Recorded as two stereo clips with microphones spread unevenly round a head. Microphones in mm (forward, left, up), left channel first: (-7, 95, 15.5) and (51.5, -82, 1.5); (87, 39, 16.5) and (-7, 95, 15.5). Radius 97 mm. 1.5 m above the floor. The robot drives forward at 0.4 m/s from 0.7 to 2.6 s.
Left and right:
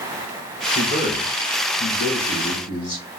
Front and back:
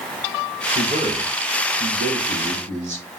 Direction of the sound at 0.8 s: 150° left.